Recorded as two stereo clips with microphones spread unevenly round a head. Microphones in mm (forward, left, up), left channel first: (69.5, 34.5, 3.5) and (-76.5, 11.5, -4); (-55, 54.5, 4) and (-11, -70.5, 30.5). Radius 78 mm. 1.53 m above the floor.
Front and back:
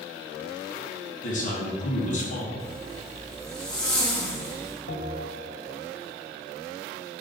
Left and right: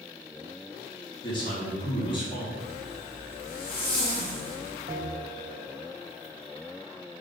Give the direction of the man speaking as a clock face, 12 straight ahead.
10 o'clock.